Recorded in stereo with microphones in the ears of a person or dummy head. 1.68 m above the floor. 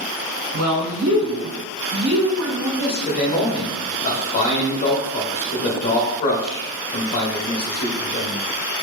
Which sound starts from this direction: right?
A woman speaking, at 0.5 s.